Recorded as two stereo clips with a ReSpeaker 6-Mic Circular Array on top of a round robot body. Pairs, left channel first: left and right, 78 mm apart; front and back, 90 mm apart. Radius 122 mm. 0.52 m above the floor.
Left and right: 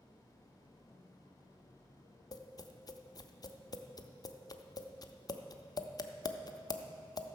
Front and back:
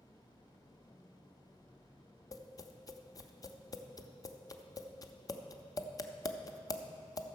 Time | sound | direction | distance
2.3 | tapping | 50° left | 0.7 m